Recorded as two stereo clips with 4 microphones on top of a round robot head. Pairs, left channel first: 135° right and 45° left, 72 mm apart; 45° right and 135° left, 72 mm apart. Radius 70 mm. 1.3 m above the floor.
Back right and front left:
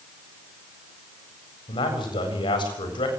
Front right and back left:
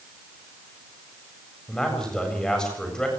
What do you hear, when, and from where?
1.7 s a man speaking: 130° right, 7.5 m